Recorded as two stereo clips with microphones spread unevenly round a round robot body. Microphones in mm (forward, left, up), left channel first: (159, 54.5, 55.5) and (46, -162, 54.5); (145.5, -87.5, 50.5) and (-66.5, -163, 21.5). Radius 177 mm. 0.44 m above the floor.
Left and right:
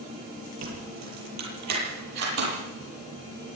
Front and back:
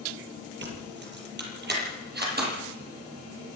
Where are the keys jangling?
120° right, 7.5 m; by 3.6 s 115° right, 11.5 m.